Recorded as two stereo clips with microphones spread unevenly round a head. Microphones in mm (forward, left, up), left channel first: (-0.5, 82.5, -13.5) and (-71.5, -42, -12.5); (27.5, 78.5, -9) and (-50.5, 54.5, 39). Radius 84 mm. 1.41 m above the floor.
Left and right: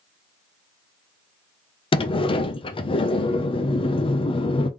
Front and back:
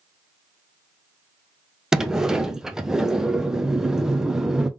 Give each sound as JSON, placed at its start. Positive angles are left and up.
{"t": 1.9, "sound": "a sliding door", "azimuth_deg": 115, "distance_m": 0.7}